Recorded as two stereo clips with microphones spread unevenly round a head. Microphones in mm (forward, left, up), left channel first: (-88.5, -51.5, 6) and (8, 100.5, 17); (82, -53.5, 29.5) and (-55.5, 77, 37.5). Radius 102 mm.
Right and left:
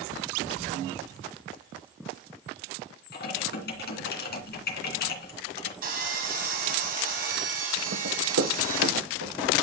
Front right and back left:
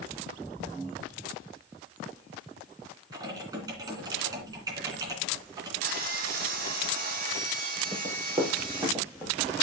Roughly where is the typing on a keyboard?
Behind right.